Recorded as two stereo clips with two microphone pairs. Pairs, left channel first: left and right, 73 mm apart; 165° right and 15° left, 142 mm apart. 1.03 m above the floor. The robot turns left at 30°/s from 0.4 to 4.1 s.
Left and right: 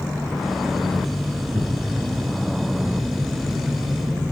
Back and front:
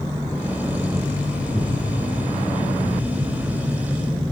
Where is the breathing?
100° right, 6 m; by 4.3 s straight behind, 6 m.